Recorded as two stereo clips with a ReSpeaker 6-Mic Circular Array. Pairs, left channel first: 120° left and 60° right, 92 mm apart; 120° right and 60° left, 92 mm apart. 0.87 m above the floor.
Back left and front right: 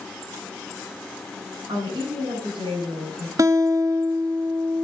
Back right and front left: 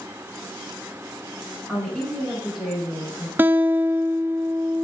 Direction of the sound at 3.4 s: 10° right.